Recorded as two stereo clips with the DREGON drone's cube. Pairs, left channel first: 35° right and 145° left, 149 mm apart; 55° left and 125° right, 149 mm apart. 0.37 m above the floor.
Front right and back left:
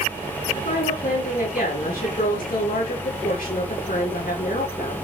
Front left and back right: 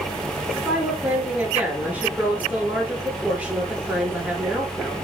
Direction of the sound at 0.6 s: 45° right.